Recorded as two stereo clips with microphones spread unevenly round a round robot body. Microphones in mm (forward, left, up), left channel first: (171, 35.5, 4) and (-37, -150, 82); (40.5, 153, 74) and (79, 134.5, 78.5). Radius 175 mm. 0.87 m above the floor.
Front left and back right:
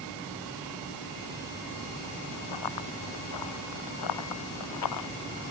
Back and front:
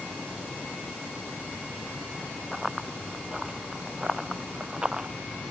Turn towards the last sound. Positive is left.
turn(degrees=40)